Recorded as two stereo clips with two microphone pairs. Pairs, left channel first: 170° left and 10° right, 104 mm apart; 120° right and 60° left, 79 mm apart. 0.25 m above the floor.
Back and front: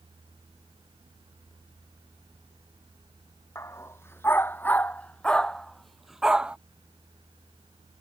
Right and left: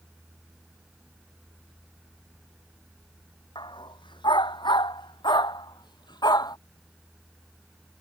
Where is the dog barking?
130° right; by 6.6 s 90° right.